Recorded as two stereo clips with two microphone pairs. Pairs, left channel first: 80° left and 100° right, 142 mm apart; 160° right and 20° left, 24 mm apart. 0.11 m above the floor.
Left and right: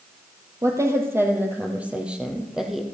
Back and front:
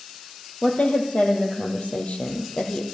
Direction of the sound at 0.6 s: 165° right.